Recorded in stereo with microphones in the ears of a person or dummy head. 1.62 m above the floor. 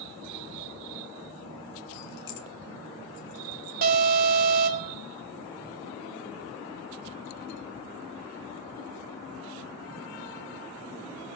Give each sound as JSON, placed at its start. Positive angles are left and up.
{"t": 1.9, "sound": "keys jangling", "side_deg": 50, "distance_m": 0.8}
{"t": 3.8, "sound": "an alarm", "side_deg": -45, "distance_m": 3.5}